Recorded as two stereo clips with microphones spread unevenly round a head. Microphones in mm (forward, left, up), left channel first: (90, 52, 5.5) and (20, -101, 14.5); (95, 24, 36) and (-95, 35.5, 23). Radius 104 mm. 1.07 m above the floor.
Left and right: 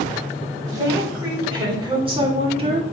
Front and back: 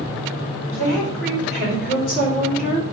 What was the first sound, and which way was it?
A woman speaking, 45° right.